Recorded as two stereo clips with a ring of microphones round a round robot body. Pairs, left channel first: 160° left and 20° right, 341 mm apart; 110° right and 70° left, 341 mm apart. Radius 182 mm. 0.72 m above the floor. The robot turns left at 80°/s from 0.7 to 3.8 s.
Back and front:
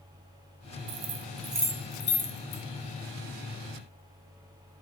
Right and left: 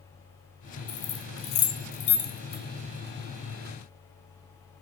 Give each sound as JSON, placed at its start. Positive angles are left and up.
{"t": 0.9, "sound": "keys jangling", "azimuth_deg": -50, "distance_m": 0.7}